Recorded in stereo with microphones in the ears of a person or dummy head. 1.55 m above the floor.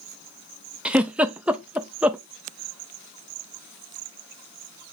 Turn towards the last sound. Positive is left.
turn(degrees=-10)  # may be behind; listen again after turning